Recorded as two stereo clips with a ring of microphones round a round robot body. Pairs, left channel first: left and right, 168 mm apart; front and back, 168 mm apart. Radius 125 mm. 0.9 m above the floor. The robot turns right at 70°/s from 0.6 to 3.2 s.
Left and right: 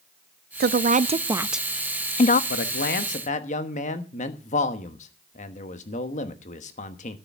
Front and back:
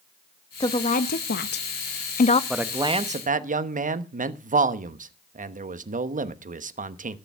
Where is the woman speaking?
70° right, 0.7 m; by 2.4 s 55° left, 0.7 m.